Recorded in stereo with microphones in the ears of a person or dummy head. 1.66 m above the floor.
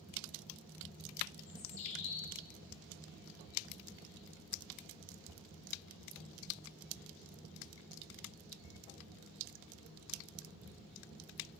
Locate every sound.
1.5 s a bird: 35° left (ahead or behind), 1.5 m